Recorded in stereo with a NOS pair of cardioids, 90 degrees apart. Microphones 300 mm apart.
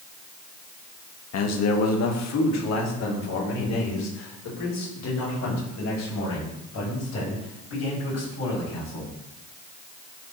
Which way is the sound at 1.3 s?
60° left.